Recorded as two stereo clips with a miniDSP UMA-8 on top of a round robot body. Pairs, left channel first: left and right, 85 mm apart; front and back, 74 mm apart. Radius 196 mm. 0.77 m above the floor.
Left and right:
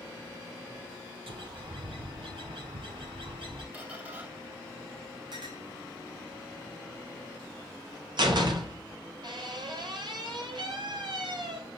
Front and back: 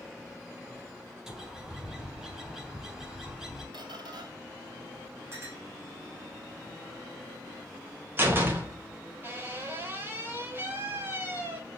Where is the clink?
125° right, 4.5 m.